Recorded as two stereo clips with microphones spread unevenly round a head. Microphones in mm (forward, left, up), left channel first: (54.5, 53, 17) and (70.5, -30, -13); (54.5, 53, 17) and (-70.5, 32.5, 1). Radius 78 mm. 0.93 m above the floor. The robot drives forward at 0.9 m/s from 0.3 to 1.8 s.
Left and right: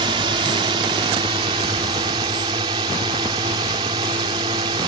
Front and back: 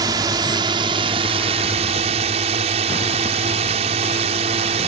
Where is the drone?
110° right; by 4.9 s 125° right.